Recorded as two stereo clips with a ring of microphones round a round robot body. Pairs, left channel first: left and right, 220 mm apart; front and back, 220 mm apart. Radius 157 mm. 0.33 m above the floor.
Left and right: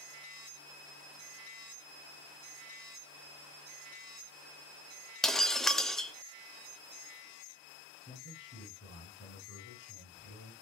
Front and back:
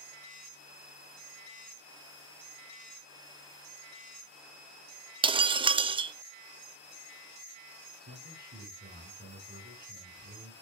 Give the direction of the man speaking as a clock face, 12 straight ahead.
7 o'clock.